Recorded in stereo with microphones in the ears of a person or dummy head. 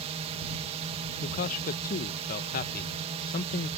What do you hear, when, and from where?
0.0 s a drone: 35° right (ahead or behind)
1.2 s a man speaking: 45° left (ahead or behind)